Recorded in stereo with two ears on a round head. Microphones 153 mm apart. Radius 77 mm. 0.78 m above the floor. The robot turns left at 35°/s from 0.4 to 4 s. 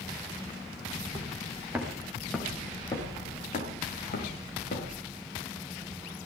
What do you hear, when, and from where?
0.9 s footsteps: 35° right (ahead or behind), 6 m; by 5.0 s 55° left (ahead or behind), 9 m